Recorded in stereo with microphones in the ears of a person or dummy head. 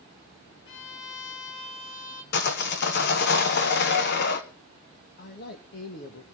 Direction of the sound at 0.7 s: 70° left (ahead or behind).